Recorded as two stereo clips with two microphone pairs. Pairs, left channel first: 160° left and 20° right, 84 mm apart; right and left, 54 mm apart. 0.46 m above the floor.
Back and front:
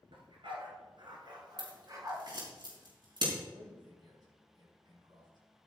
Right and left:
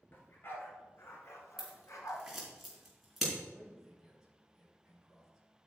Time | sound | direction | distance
0.1 | a dog barking | 40° right | 2.5 m
1.6 | scissors | 5° left | 4 m
3.5 | a man speaking | 5° left | 5.5 m